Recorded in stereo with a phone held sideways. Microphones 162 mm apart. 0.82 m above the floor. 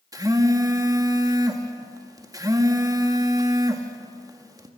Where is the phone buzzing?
25° right (ahead or behind), 1.8 m.